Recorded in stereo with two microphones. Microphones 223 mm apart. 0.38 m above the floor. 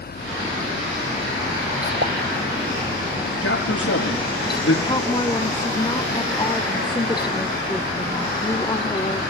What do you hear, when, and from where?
2.0 s a pop: 55° right (ahead or behind), 0.7 m
3.4 s a man speaking: 80° left, 6.5 m
4.8 s a woman speaking: 20° left (ahead or behind), 0.9 m